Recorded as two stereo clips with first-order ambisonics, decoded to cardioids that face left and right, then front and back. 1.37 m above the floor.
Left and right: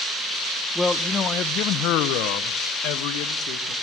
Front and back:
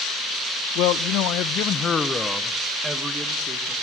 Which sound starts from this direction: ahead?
A man speaking, at 0.8 s.